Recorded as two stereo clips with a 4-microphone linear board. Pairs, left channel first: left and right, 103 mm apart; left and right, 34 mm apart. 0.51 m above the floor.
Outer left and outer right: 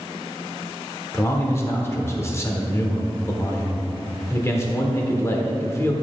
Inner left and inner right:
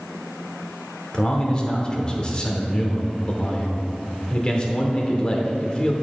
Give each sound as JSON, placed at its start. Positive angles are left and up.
{"t": 1.1, "sound": "a man speaking", "side_deg": 25, "distance_m": 1.1}